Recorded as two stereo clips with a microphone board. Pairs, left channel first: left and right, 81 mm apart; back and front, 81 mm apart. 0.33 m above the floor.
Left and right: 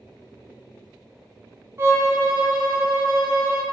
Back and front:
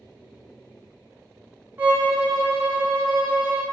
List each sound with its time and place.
1.8 s a violin: 55° right, 1.1 m